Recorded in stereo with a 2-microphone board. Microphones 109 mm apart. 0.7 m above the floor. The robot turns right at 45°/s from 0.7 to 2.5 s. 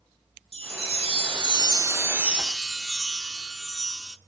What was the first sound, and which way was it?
A chime, 85° right.